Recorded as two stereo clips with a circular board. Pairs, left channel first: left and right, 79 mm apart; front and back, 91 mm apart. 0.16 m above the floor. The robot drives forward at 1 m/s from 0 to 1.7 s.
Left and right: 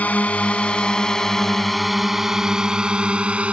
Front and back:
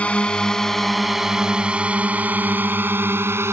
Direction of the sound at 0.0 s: 55° left.